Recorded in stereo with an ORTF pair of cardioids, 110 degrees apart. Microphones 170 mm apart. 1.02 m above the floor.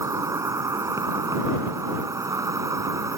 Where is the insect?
20° right.